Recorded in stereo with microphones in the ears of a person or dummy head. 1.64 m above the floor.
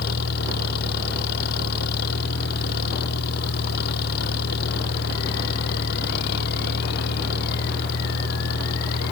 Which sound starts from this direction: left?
An engine running, at 0.0 s.